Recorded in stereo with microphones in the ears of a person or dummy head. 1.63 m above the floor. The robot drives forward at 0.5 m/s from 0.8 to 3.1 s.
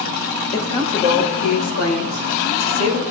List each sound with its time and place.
0.5 s a woman speaking: 70° left (ahead or behind), 4 m; by 3.0 s 85° left, 4 m